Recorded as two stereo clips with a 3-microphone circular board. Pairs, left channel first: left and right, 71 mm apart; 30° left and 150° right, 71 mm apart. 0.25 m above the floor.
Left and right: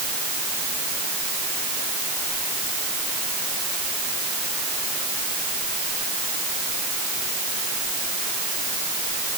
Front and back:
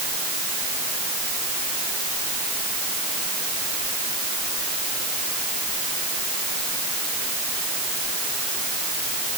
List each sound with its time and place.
Only background noise.